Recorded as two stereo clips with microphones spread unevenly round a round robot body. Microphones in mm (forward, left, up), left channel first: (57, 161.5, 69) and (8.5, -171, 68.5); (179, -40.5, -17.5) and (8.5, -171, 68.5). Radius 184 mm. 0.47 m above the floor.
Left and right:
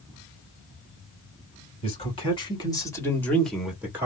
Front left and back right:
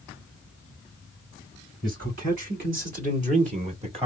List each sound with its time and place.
1.8 s a man speaking: 150° left, 1.9 m; by 4.1 s 70° right, 1.3 m